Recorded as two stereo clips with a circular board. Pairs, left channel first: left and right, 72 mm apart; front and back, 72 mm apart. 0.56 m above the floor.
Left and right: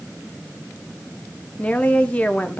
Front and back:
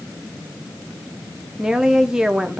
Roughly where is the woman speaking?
Behind left.